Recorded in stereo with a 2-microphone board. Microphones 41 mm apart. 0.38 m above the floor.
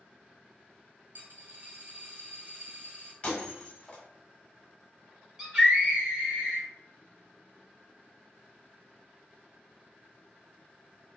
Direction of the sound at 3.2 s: 35° left (ahead or behind).